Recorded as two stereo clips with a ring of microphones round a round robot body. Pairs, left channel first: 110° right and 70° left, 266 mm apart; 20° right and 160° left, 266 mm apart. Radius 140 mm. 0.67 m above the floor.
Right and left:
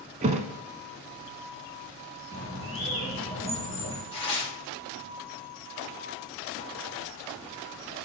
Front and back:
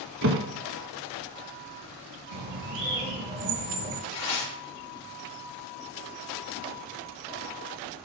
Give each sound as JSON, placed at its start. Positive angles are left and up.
{"t": 0.2, "sound": "a thud", "azimuth_deg": 125, "distance_m": 0.8}
{"t": 2.3, "sound": "a bird", "azimuth_deg": 145, "distance_m": 3.5}
{"t": 4.1, "sound": "tearing paper", "azimuth_deg": -45, "distance_m": 3.0}